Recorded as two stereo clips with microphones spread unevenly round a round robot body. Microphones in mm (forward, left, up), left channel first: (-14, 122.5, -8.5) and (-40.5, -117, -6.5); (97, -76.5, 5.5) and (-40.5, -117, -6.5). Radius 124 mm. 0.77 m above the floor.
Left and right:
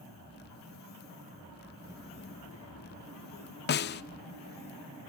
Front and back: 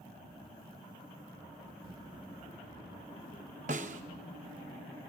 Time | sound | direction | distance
1.8 | a child speaking | 150° right | 0.5 m
3.7 | a snare drum | 135° left | 0.5 m